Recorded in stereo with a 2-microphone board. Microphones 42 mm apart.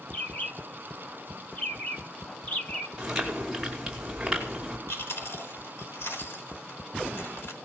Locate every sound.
0.1 s a bird: 40° left (ahead or behind), 2.0 m
3.0 s chewing: 10° right (ahead or behind), 5 m
4.9 s chewing: 75° left (ahead or behind), 4.5 m